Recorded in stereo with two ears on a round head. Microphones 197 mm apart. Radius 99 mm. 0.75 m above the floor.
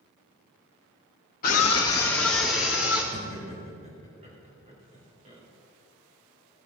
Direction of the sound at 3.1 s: 30° right (ahead or behind).